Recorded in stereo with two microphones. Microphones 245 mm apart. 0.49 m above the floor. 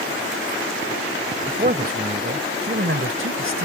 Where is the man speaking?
35° right (ahead or behind); by 3.6 s 60° right (ahead or behind).